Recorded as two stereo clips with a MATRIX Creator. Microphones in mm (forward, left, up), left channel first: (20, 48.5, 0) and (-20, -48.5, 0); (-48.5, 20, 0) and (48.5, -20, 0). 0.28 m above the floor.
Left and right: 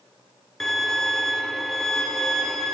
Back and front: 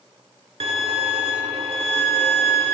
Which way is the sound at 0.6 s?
20° right.